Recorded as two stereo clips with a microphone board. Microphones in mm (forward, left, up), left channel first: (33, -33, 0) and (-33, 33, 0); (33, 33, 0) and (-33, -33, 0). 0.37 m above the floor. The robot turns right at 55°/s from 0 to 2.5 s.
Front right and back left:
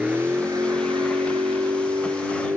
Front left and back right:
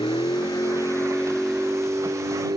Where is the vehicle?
55° left; by 2.6 s 165° right.